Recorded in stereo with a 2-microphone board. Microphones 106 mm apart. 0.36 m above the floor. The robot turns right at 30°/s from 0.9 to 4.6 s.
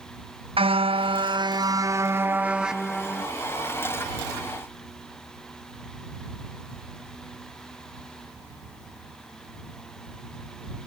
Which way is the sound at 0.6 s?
60° right.